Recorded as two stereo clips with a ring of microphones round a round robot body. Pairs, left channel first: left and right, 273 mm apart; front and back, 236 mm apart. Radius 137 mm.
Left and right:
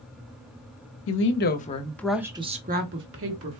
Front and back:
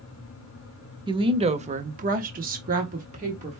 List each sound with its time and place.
1.1 s a woman speaking: 115° left, 0.9 m; by 3.6 s 115° right, 1.2 m